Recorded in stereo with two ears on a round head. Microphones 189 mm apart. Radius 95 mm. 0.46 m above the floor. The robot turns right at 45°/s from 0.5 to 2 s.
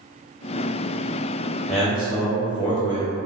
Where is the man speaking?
5° left (ahead or behind), 0.8 m; by 3.1 s 5° right (ahead or behind), 0.8 m.